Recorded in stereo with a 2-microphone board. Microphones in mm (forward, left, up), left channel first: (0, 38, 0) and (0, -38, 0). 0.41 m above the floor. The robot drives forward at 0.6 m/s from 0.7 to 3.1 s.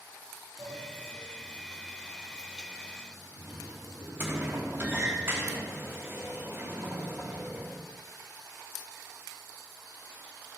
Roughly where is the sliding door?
Centre.